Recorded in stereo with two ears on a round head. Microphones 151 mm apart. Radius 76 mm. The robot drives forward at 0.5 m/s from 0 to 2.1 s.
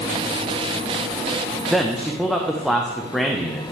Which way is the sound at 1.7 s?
Centre (ahead or behind).